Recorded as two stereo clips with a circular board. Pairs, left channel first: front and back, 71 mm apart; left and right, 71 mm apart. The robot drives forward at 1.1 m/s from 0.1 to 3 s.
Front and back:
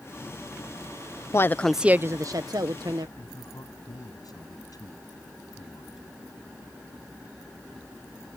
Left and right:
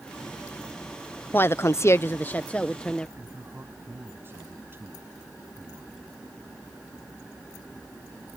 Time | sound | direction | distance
1.3 | a woman speaking | 35° left | ?
3.2 | a man speaking | 30° right | ?